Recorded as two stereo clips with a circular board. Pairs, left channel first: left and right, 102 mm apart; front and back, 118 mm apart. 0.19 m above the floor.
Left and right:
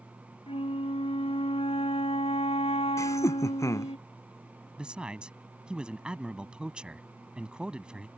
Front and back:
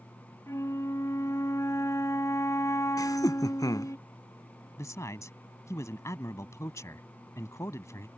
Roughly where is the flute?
Ahead left.